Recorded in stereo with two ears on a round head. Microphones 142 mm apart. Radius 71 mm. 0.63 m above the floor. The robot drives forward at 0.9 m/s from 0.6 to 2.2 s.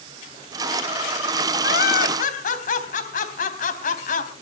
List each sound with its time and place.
1.6 s laughter: 65° left (ahead or behind), 3.5 m; by 4.3 s 55° left (ahead or behind), 3.5 m